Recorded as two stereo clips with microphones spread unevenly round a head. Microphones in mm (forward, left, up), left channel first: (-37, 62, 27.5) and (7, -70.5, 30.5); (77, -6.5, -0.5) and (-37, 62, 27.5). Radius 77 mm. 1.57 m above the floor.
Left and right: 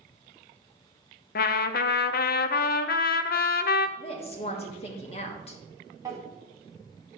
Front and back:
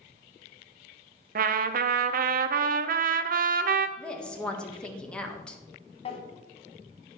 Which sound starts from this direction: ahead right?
A drawer, at 6.0 s.